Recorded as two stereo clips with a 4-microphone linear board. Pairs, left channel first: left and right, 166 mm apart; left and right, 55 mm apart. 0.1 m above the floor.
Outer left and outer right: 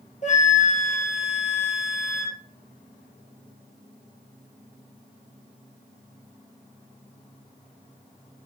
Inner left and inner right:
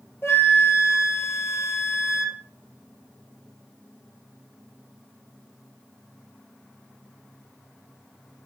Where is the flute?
45° left (ahead or behind), 1.6 m.